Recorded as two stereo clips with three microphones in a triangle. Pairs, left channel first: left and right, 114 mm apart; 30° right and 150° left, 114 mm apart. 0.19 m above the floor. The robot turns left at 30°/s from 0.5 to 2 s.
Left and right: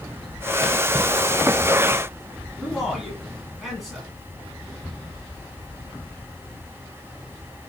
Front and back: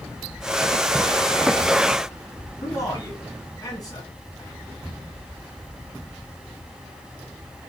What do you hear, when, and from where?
2.6 s a man speaking: straight ahead, 1.5 m